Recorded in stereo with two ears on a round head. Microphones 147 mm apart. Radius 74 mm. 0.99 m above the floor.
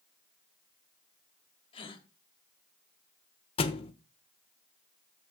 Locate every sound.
1.7 s a gasp: 35° left (ahead or behind), 1.3 m
3.6 s a thud: 35° left (ahead or behind), 0.8 m